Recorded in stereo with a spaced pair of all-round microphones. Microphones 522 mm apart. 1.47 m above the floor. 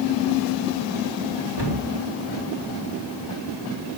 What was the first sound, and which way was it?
A cupboard door, 50° right (ahead or behind).